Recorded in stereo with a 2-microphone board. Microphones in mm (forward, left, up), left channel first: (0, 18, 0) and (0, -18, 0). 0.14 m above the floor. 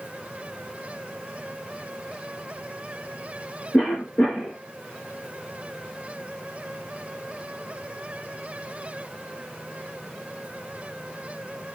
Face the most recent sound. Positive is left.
turn(degrees=45)  # may be behind; listen again after turning